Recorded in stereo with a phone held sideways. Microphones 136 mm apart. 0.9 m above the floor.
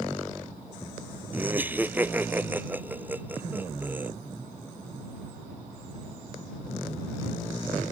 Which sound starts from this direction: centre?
Laughter, at 1.3 s.